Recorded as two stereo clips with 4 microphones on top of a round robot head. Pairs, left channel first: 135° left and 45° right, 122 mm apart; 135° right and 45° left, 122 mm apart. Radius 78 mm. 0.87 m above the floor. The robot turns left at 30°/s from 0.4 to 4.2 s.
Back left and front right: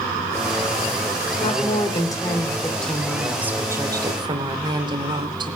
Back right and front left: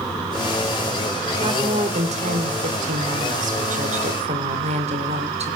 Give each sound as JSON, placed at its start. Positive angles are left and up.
{"t": 1.4, "sound": "a woman speaking", "azimuth_deg": 95, "distance_m": 3.0}